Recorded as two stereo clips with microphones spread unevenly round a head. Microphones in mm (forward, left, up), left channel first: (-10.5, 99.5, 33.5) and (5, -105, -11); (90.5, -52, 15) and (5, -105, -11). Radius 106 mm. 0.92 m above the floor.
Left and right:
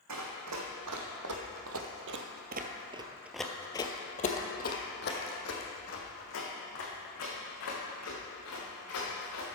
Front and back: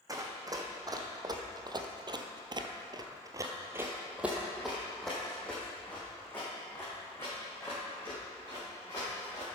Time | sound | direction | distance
0.1 | running footsteps | 90° right | 2.5 m